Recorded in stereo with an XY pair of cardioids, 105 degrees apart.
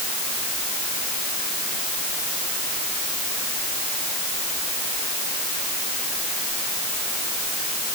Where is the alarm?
No alarm in this recording.